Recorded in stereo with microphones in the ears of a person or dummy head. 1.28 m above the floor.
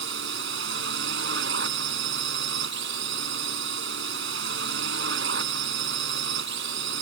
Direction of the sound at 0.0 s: 65° right (ahead or behind).